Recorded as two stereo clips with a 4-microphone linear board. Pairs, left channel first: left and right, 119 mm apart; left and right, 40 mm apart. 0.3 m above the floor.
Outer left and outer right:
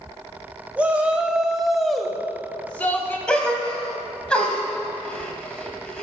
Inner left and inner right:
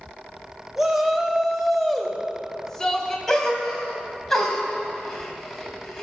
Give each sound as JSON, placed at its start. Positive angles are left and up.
{"t": 0.8, "sound": "a shout", "side_deg": -10, "distance_m": 1.4}
{"t": 3.3, "sound": "a gasp", "side_deg": 10, "distance_m": 1.8}